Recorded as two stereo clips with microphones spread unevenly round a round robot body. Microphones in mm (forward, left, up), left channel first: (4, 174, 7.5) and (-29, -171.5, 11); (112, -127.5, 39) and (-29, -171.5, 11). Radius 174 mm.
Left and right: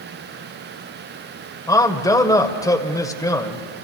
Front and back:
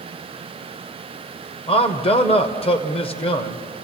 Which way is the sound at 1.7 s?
15° left.